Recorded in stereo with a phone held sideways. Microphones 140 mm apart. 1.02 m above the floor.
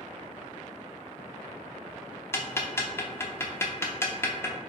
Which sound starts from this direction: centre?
Ticking, at 2.3 s.